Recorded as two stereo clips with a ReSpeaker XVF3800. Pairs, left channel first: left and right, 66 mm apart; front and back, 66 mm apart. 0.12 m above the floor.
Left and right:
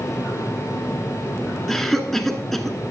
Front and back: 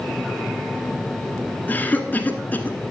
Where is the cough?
10° left, 1.1 m.